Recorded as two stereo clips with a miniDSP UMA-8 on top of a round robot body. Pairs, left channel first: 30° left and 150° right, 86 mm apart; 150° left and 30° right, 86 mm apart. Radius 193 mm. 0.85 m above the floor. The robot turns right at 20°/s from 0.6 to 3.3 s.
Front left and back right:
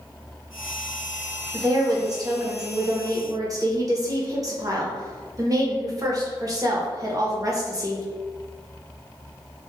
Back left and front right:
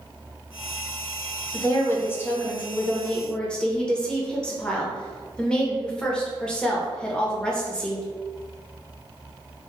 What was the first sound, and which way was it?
A woman speaking, 170° right.